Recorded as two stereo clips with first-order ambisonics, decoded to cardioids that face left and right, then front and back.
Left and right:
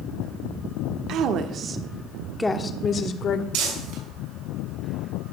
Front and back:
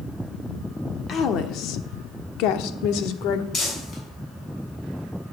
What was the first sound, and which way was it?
A woman speaking, 55° right.